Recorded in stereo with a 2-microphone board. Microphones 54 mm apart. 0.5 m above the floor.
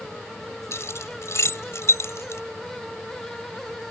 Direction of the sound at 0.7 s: 65° left (ahead or behind).